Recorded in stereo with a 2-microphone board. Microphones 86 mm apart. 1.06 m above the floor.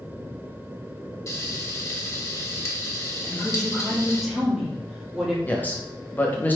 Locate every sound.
1.3 s frying: 40° left (ahead or behind), 1.0 m
3.2 s a woman speaking: centre (ahead or behind), 1.7 m
5.5 s a man speaking: 20° left (ahead or behind), 0.9 m